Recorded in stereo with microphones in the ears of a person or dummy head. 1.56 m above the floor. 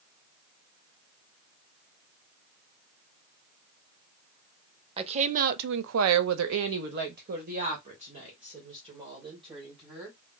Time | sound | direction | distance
5.0 | a woman speaking | 30° right (ahead or behind) | 0.8 m